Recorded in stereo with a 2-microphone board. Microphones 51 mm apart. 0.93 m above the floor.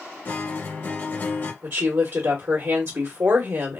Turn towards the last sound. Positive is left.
turn(degrees=-50)  # may be behind; listen again after turning